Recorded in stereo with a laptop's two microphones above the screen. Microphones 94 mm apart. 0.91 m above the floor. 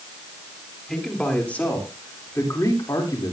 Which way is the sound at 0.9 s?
5° left (ahead or behind).